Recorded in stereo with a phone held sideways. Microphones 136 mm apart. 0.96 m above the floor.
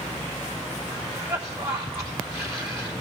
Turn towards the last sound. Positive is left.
turn(degrees=-10)  # may be behind; listen again after turning